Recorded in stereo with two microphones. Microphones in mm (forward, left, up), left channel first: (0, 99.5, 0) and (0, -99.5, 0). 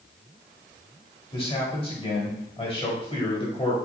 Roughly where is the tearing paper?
No tearing paper in this recording.